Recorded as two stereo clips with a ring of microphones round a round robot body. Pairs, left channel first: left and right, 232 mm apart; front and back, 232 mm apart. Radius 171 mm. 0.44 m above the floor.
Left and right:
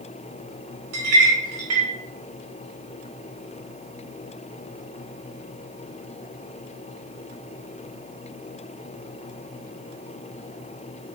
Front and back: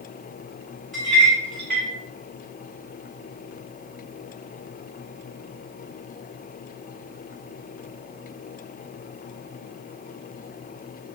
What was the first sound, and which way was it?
A clink, 90° right.